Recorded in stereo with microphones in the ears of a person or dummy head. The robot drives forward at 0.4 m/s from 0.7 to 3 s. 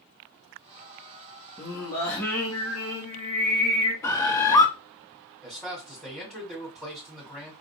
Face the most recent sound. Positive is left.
turn(degrees=0)  # may be behind; listen again after turning